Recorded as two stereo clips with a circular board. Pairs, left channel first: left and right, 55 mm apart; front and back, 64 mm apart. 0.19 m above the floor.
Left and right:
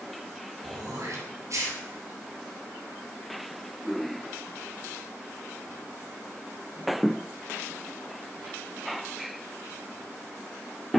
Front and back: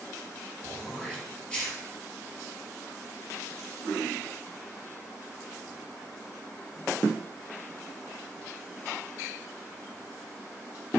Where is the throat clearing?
75° right, 3 m.